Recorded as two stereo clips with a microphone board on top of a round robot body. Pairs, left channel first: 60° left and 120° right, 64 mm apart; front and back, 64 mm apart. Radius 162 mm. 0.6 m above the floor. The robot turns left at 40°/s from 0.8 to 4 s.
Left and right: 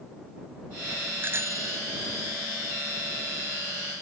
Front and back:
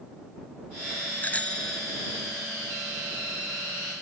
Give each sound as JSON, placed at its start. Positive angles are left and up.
{"t": 1.2, "sound": "a bicycle bell", "azimuth_deg": -65}